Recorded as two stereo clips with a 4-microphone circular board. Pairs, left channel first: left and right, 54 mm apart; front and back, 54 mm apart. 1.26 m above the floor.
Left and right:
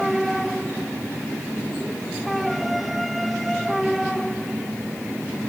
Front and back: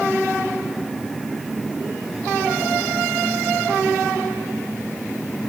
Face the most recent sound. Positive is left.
No sound to turn to.